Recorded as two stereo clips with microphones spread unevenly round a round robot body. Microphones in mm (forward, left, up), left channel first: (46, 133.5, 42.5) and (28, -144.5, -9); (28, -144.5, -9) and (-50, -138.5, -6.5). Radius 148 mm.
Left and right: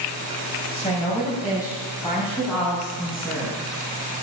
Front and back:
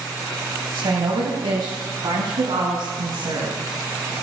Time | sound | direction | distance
0.7 | a woman speaking | 160° left | 2 m